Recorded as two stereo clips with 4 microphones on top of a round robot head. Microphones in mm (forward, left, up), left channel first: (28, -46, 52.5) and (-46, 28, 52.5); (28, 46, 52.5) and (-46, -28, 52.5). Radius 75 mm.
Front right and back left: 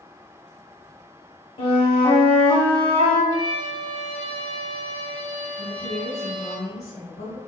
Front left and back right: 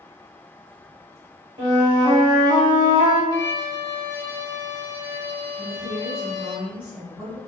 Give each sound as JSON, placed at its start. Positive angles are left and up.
{"t": 1.6, "sound": "a flute", "azimuth_deg": -85, "distance_m": 2.0}
{"t": 3.3, "sound": "a violin", "azimuth_deg": 100, "distance_m": 1.2}
{"t": 5.6, "sound": "a woman speaking", "azimuth_deg": -55, "distance_m": 2.0}